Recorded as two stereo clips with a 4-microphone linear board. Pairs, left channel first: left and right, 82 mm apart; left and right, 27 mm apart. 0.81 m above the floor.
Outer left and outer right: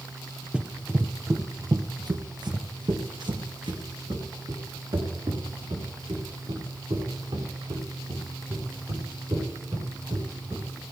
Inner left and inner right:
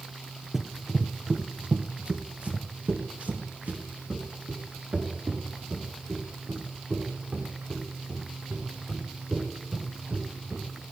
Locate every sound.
0.5 s running footsteps: 10° right (ahead or behind), 1.2 m; by 10.6 s 85° right, 9 m